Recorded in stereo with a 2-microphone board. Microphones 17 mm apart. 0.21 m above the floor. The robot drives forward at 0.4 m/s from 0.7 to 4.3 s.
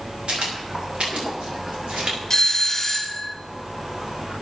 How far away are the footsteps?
About 9 m.